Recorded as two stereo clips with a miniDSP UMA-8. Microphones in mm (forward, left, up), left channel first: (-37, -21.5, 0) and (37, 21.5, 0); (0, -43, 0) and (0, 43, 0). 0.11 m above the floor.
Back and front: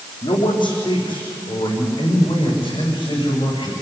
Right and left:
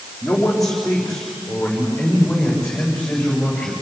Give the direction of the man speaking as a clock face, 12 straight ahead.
6 o'clock.